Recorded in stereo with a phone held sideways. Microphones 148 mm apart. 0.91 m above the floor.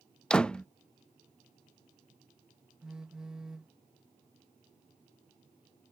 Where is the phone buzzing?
5° right (ahead or behind).